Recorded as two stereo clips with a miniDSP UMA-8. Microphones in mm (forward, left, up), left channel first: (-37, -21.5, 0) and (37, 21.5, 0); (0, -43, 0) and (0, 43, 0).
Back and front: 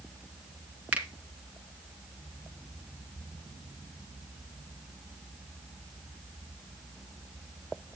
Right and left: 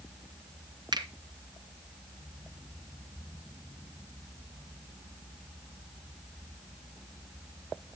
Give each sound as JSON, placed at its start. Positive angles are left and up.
{"t": 0.9, "sound": "a finger snap", "azimuth_deg": 100, "distance_m": 2.0}